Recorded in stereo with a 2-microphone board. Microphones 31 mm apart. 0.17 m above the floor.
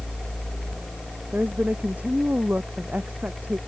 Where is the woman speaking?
65° right (ahead or behind); by 3.6 s 70° right (ahead or behind).